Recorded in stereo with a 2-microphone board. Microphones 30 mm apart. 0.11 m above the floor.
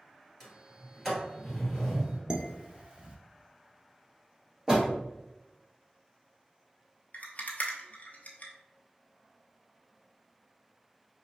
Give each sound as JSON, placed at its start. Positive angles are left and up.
{"t": 0.4, "sound": "a sliding door", "side_deg": 5, "distance_m": 1.9}
{"t": 2.3, "sound": "dishes clattering", "side_deg": -25, "distance_m": 0.8}
{"t": 4.7, "sound": "a door slam", "side_deg": -20, "distance_m": 1.8}
{"t": 7.1, "sound": "a rattle", "side_deg": 50, "distance_m": 0.9}